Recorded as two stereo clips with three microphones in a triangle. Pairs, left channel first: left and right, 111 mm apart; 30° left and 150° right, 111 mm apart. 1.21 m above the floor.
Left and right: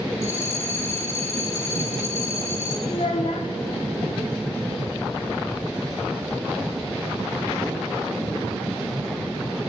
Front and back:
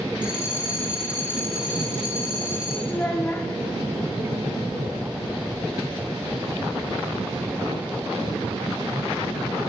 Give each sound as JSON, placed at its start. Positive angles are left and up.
{"t": 0.2, "sound": "a bell", "azimuth_deg": 140, "distance_m": 1.0}
{"t": 2.9, "sound": "a child speaking", "azimuth_deg": 100, "distance_m": 0.8}